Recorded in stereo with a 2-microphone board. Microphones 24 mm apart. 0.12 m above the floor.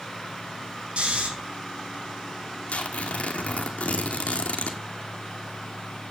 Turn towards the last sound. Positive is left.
turn(degrees=80)